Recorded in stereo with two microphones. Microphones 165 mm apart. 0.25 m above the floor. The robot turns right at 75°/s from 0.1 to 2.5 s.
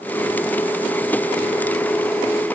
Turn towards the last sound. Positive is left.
No sound to turn to.